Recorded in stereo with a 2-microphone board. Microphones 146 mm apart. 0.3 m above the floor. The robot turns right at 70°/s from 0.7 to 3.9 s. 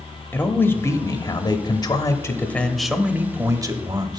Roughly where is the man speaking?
Centre.